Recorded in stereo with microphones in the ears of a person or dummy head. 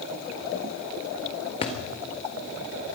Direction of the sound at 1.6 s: 30° left (ahead or behind).